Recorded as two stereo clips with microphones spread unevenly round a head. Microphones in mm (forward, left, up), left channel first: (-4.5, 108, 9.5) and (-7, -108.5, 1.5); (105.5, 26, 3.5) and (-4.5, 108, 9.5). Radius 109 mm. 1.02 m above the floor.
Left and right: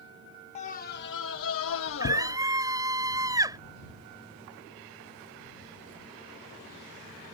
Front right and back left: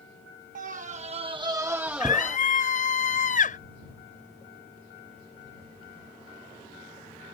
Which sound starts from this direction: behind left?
A scream, at 0.6 s.